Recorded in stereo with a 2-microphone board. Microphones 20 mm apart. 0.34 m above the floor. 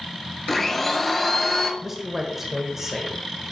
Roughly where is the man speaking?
Centre.